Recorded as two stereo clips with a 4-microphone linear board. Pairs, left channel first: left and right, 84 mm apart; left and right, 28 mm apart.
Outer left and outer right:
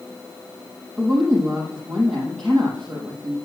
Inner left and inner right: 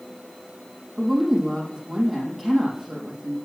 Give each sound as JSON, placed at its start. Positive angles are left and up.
{"t": 1.0, "sound": "a woman speaking", "side_deg": 10, "distance_m": 4.5}